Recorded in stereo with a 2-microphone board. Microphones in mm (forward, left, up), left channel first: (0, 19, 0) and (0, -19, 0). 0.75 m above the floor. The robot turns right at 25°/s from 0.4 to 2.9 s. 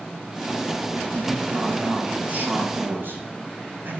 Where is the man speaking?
160° right, 5.5 m; by 4.0 s 115° right, 5.5 m.